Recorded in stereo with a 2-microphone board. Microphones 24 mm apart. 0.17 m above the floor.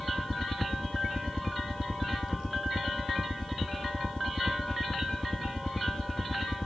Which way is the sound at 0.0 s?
35° left (ahead or behind).